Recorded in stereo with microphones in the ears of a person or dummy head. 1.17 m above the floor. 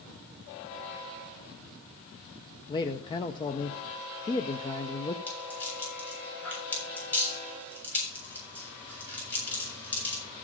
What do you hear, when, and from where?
2.7 s a man speaking: 20° left (ahead or behind), 0.5 m
5.3 s a rattle: 10° left (ahead or behind), 7 m